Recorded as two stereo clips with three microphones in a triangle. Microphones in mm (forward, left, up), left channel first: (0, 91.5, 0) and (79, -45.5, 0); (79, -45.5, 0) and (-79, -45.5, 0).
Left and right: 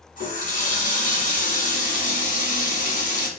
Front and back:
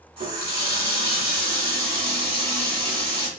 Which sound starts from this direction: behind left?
A running tap, at 0.2 s.